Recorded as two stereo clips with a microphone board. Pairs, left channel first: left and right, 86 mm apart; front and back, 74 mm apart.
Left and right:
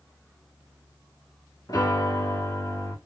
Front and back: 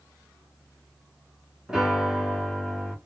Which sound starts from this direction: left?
A piano, at 1.7 s.